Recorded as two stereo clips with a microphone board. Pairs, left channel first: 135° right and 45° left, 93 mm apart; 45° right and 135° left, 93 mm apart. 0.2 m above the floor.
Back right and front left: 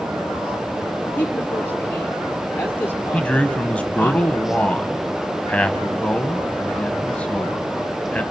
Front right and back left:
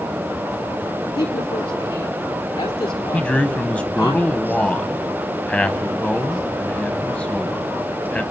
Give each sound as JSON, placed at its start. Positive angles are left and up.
{"t": 1.1, "sound": "a woman speaking", "azimuth_deg": -65, "distance_m": 3.0}
{"t": 3.1, "sound": "a man speaking", "azimuth_deg": -90, "distance_m": 1.0}